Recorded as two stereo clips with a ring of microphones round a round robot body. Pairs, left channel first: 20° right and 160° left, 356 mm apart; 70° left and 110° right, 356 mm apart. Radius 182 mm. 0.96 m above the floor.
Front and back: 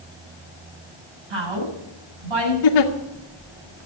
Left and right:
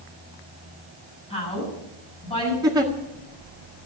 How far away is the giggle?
About 2.0 m.